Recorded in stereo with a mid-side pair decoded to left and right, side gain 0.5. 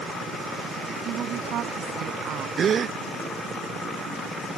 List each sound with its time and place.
1.1 s a woman speaking: 60° right
2.6 s a gasp: 45° right